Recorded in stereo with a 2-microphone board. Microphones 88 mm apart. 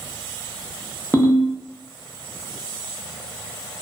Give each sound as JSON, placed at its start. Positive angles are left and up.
{"t": 1.1, "sound": "a ringtone", "side_deg": 20, "distance_m": 0.6}